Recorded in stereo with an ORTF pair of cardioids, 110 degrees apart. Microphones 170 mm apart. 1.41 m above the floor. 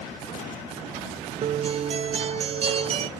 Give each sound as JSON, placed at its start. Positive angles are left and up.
{"t": 1.4, "sound": "a guitar", "azimuth_deg": -35, "distance_m": 0.5}